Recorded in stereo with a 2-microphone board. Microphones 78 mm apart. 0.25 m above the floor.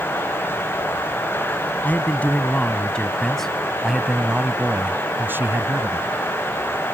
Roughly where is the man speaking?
Left.